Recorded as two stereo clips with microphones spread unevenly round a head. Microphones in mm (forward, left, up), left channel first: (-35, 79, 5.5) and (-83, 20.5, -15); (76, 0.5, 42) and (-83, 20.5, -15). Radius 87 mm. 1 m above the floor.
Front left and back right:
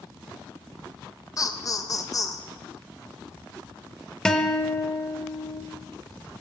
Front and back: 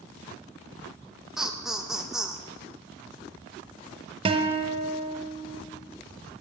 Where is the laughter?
100° left, 1.3 m.